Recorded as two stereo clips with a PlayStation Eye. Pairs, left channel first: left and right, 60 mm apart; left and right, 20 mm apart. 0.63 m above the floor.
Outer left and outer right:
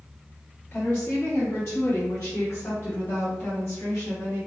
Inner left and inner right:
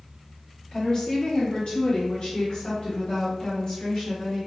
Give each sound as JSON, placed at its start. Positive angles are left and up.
{"t": 0.7, "sound": "a woman speaking", "side_deg": 40, "distance_m": 1.1}